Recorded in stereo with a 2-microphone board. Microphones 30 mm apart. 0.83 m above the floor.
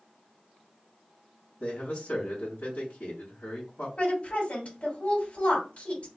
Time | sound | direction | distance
1.6 | a man speaking | 60° left (ahead or behind) | 1.8 m
4.0 | a woman speaking | 60° left (ahead or behind) | 1.9 m